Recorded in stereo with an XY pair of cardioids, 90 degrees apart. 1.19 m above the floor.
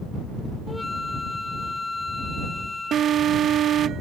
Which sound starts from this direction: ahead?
A flute, at 0.7 s.